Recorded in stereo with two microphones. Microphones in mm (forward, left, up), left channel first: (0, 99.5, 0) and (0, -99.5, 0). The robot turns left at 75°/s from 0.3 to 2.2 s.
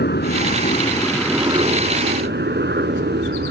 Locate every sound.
0.0 s a helicopter: 70° left; by 3.5 s 75° right